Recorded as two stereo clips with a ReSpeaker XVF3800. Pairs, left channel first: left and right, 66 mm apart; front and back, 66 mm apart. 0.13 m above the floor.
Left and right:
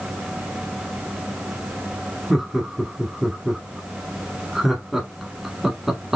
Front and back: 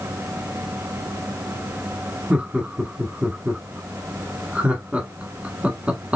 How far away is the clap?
I don't hear a clap.